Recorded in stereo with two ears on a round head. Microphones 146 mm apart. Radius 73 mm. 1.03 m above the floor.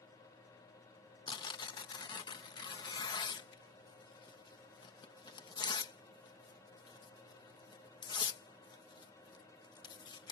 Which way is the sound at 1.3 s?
30° left (ahead or behind).